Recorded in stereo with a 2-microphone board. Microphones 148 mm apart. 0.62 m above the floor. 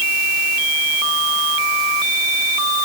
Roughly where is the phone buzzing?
No phone buzzing in this recording.